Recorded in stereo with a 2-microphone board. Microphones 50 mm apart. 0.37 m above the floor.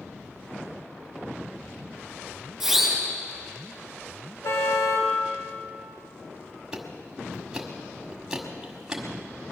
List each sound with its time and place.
2.6 s a siren: centre (ahead or behind), 6.5 m
4.4 s a car horn: 65° left (ahead or behind), 3 m
6.7 s ticking: 10° right (ahead or behind), 1.7 m